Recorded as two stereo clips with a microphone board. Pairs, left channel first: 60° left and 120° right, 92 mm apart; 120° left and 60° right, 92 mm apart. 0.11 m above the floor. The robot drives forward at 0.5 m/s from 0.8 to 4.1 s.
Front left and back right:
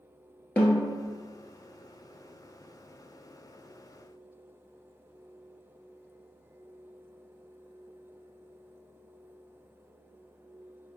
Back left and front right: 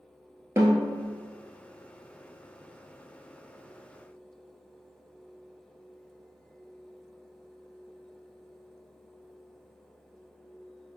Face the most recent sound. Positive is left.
turn(degrees=-170)